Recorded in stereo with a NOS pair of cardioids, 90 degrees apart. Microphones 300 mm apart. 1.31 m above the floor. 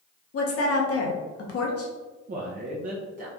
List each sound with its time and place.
0.3 s a woman speaking: 50° left, 1.2 m
2.3 s a man speaking: 30° right, 0.8 m